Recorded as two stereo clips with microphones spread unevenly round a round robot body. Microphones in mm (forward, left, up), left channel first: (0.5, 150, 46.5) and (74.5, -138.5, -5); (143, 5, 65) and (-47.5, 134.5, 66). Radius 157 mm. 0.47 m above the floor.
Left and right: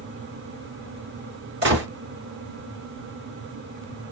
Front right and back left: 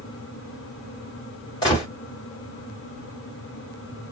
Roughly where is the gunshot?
Right.